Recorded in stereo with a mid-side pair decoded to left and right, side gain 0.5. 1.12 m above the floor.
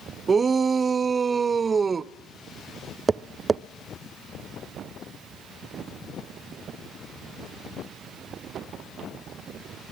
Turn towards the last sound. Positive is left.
turn(degrees=-25)